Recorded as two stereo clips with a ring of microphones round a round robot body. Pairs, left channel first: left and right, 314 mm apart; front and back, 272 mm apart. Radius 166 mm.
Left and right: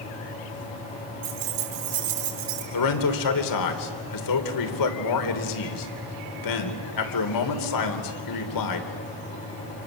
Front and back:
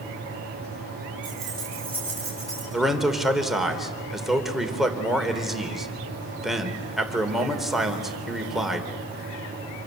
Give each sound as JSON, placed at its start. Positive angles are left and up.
{"t": 1.2, "sound": "keys jangling", "azimuth_deg": -90, "distance_m": 5.0}
{"t": 2.7, "sound": "a man speaking", "azimuth_deg": 90, "distance_m": 3.0}